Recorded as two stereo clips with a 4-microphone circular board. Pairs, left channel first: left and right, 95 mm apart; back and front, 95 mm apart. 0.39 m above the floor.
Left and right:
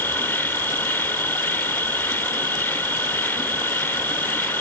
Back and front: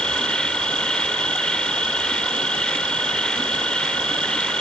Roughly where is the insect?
Behind left.